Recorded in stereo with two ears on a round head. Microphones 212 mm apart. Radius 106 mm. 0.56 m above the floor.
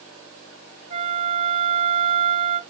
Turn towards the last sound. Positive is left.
turn(degrees=-25)  # may be behind; listen again after turning